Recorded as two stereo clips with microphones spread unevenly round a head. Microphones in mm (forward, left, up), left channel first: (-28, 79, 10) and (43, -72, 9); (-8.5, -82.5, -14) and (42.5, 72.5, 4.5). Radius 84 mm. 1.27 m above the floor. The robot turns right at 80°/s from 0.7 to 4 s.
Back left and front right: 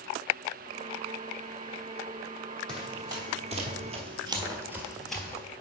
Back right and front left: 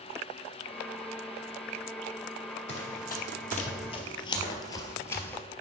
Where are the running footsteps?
160° right, 2 m; by 5.4 s 170° left, 1.3 m.